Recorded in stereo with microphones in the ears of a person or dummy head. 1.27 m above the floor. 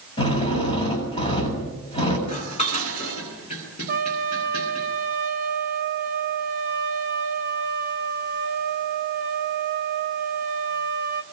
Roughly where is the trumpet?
Right.